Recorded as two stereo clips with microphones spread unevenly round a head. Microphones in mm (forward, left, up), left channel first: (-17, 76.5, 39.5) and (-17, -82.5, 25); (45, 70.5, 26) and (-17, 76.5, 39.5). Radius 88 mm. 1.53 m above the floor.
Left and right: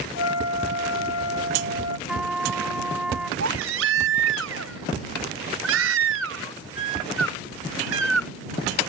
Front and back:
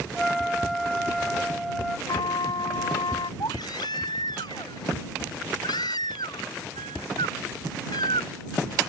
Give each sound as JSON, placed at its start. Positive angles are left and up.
{"t": 0.1, "sound": "a flute", "azimuth_deg": 80}
{"t": 2.1, "sound": "a trumpet", "azimuth_deg": -5}
{"t": 3.4, "sound": "a baby crying", "azimuth_deg": -70}